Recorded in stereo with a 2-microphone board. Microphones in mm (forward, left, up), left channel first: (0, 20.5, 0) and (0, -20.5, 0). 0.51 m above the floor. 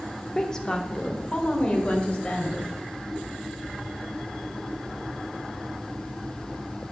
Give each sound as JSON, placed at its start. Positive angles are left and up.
{"t": 0.3, "sound": "a woman speaking", "side_deg": 10, "distance_m": 0.7}